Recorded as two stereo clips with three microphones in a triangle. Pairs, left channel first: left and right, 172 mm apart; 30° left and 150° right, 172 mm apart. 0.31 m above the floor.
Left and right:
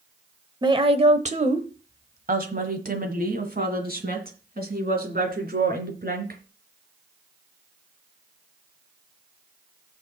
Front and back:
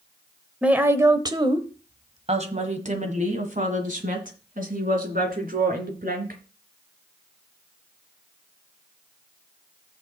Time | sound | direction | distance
0.6 | a woman speaking | 75° right | 0.9 m